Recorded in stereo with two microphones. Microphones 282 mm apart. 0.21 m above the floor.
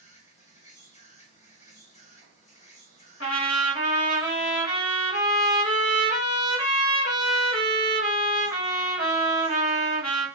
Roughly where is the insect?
Left.